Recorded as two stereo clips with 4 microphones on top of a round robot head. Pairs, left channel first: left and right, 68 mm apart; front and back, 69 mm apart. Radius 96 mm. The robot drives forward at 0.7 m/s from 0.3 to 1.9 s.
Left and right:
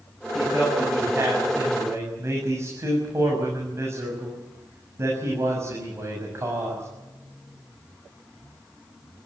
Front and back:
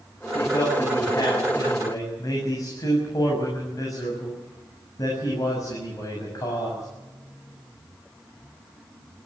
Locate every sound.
0.3 s a man speaking: 35° right, 8 m; by 6.9 s 40° right, 7 m